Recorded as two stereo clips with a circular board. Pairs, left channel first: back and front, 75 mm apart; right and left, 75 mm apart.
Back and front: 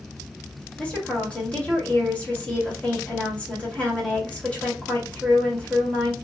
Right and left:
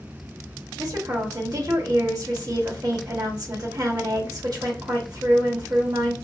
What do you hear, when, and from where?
0.8 s a woman speaking: 105° left, 1.8 m